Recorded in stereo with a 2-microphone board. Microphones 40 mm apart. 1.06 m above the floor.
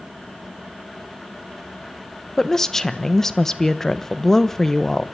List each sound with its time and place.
2.4 s a woman speaking: 10° left (ahead or behind), 1.0 m